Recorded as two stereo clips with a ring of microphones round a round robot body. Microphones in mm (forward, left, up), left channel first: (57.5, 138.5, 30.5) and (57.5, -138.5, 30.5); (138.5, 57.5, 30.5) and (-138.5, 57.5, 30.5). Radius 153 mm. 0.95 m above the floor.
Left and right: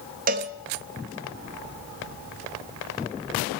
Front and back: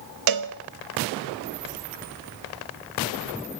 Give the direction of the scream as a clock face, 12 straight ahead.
I don't hear a scream.